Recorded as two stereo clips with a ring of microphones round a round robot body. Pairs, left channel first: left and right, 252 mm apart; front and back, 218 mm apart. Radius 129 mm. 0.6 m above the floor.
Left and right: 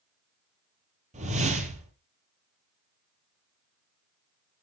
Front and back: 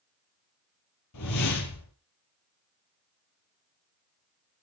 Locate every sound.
1.1 s a whoosh: 25° right, 4 m